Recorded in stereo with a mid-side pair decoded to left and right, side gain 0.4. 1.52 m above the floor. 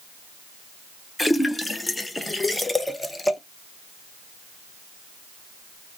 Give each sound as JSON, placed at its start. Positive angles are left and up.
{"t": 1.2, "sound": "a splash", "azimuth_deg": 20, "distance_m": 0.6}